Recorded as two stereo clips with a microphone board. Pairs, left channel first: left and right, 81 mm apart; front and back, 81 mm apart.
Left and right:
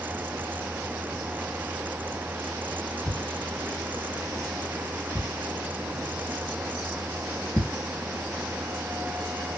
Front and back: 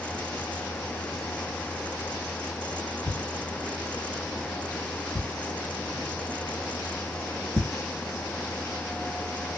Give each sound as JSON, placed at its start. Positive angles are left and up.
{"t": 3.1, "sound": "a thud", "azimuth_deg": 160, "distance_m": 1.4}